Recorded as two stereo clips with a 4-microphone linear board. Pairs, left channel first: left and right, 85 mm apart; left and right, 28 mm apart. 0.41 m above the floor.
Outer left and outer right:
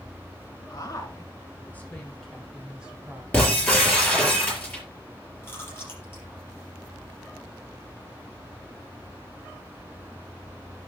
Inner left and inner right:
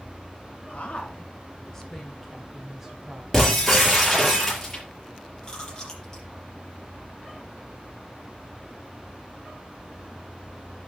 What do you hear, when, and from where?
0.7 s a woman speaking: 45° left (ahead or behind), 2.5 m; by 3.2 s 20° right (ahead or behind), 2.5 m
3.3 s breaking glass: 15° left (ahead or behind), 5 m
5.4 s chewing: 25° left (ahead or behind), 4.5 m